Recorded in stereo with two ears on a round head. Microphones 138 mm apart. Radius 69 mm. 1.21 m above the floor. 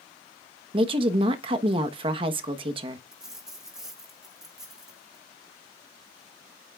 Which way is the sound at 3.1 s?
5° right (ahead or behind).